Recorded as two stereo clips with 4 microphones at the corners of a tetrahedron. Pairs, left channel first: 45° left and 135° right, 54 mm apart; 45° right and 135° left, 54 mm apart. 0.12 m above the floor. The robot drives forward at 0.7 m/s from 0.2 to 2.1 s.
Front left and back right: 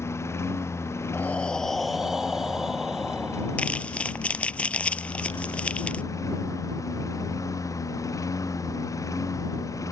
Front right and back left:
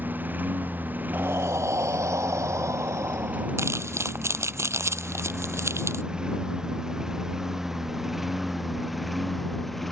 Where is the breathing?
95° left; by 3.8 s 145° left.